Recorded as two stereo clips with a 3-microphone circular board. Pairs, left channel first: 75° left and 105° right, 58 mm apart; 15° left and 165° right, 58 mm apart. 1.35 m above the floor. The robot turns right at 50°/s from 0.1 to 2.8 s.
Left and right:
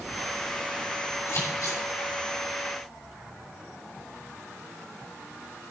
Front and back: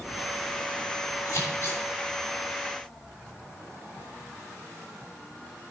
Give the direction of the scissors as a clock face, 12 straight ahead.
10 o'clock.